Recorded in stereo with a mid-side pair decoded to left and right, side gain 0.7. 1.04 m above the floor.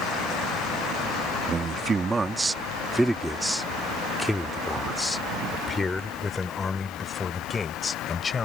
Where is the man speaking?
30° right; by 8.4 s 25° left.